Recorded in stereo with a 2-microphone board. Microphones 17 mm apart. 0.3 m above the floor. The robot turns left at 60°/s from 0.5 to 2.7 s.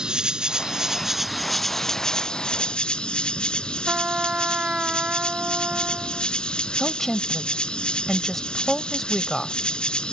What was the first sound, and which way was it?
An insect, 125° right.